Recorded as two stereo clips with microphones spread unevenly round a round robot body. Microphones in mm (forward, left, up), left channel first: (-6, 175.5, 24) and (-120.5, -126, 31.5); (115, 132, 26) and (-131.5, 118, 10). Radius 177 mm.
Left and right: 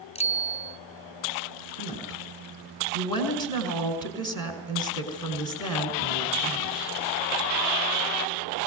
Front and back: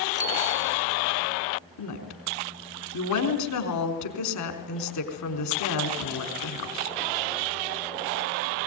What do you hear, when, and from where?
0.1 s a bicycle bell: 140° left, 2.5 m
1.8 s a woman speaking: 10° right, 4.5 m